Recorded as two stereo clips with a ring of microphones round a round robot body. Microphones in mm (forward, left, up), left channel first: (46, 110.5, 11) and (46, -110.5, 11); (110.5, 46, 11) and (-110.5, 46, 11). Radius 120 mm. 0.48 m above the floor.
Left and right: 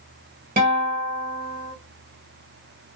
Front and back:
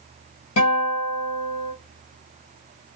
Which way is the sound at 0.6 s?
40° right.